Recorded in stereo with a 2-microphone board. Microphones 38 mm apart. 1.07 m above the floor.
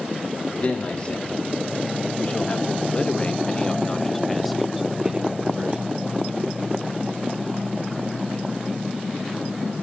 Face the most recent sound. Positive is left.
turn(degrees=-30)  # may be behind; listen again after turning